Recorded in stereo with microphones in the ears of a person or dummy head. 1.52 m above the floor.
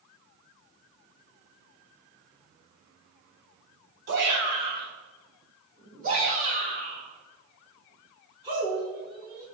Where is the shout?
65° right (ahead or behind), 1.4 m; by 9.4 s 30° right (ahead or behind), 4.5 m.